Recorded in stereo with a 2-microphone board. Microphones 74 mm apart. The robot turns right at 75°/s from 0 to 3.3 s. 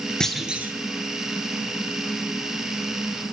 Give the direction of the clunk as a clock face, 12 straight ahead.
6 o'clock.